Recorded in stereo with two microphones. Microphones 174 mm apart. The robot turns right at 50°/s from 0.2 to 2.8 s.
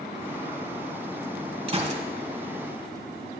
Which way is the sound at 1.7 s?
30° right (ahead or behind).